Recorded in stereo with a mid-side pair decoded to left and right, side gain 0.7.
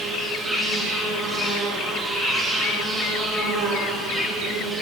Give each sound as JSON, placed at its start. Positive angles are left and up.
{"t": 0.0, "sound": "an insect", "azimuth_deg": -20, "distance_m": 2.5}